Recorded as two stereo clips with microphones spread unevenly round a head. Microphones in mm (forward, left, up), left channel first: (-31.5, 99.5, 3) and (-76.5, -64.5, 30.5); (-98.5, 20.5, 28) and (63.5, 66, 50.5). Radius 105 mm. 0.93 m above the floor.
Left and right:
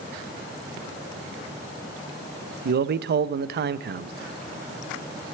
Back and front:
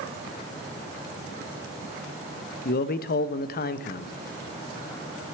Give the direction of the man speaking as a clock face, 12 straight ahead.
5 o'clock.